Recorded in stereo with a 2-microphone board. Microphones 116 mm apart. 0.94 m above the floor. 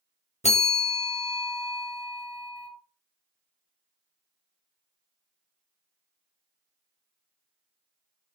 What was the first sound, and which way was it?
A bell, 70° left (ahead or behind).